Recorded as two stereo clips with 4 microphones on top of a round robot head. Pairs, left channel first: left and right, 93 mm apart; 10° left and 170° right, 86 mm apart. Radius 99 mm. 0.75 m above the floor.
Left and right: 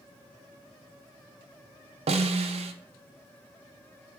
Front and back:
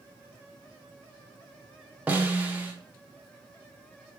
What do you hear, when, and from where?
2.1 s a snare drum: 95° right, 0.5 m